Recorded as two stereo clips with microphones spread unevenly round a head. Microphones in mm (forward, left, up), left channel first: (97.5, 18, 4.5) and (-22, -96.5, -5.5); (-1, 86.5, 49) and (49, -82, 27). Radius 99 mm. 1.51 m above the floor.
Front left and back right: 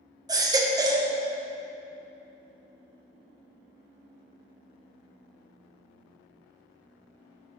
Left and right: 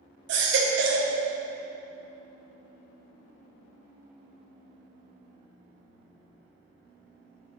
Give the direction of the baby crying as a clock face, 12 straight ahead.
2 o'clock.